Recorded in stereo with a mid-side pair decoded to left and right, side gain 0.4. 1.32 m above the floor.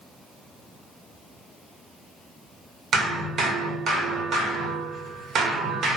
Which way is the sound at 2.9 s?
60° right.